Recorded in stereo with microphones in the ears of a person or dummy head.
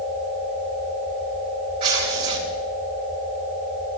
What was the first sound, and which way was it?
Tearing paper, 30° right (ahead or behind).